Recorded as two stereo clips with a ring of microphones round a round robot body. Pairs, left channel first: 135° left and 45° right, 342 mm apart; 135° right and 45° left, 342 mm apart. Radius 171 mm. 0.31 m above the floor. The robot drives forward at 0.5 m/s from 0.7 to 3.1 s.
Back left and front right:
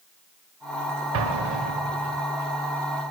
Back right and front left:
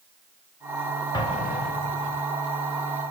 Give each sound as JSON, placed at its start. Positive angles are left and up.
{"t": 1.1, "sound": "an explosion", "azimuth_deg": -60, "distance_m": 0.7}